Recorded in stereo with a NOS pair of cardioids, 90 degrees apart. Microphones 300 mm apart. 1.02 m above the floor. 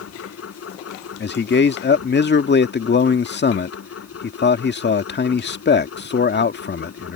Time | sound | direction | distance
0.0 | a machine running | 50° left | ?
1.2 | a man speaking | 35° left | ?